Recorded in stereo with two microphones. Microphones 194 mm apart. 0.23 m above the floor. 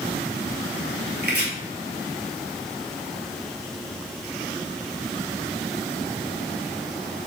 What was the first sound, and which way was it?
Chopping, 60° right (ahead or behind).